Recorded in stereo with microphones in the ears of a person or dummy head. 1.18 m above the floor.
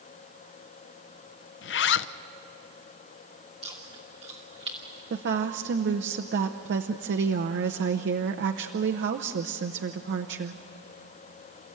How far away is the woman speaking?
About 0.8 m.